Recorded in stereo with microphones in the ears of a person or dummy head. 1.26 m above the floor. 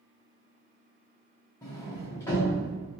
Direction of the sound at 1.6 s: 10° left (ahead or behind).